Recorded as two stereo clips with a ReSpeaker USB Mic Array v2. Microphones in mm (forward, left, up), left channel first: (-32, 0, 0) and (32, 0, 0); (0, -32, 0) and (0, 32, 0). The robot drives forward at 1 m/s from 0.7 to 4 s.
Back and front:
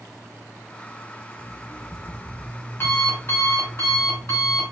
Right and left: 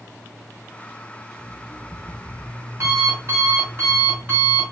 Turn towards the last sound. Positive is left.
turn(degrees=140)